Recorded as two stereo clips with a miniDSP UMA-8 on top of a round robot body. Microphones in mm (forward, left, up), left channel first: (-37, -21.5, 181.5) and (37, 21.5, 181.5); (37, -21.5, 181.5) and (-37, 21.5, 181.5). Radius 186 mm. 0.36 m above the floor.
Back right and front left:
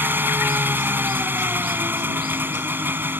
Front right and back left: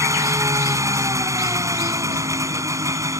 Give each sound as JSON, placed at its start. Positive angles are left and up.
{"t": 0.0, "sound": "an engine running", "azimuth_deg": 95}